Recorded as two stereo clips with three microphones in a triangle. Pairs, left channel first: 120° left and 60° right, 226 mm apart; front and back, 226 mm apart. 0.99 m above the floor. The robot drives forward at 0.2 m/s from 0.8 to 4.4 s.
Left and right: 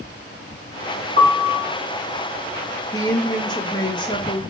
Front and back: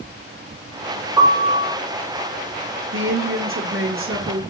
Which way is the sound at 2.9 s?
165° right.